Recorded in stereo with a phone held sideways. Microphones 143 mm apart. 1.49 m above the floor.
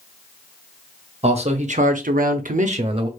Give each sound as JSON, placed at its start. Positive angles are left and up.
{"t": 1.2, "sound": "a man speaking", "side_deg": -40, "distance_m": 0.9}